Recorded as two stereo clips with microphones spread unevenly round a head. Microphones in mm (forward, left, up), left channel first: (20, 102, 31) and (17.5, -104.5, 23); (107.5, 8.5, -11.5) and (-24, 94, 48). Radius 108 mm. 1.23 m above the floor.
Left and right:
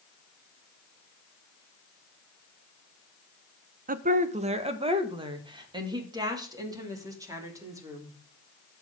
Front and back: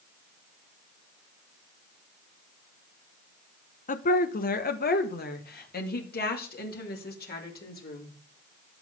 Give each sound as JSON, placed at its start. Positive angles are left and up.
{"t": 3.9, "sound": "a woman speaking", "azimuth_deg": -45, "distance_m": 1.0}